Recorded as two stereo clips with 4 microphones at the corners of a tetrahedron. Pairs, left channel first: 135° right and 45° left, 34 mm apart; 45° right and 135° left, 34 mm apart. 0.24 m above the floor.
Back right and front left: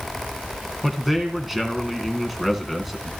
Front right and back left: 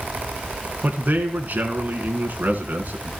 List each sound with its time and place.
0.8 s a man speaking: 130° left, 1.9 m